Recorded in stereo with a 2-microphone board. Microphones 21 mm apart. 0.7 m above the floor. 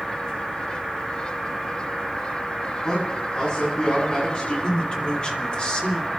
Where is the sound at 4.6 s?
50° left (ahead or behind), 3 m.